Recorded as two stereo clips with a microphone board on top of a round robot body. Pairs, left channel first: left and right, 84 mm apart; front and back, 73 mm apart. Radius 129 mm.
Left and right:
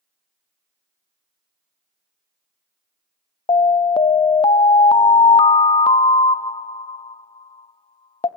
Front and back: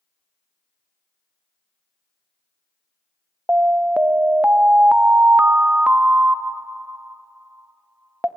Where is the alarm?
110° left, 0.6 m.